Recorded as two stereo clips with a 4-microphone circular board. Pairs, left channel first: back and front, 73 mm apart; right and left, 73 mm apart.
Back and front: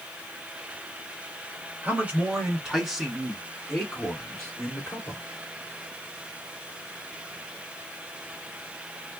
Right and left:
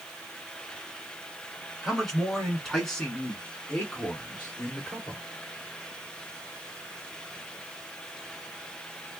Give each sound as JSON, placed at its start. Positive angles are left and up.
{"t": 1.8, "sound": "a man speaking", "azimuth_deg": 0, "distance_m": 1.8}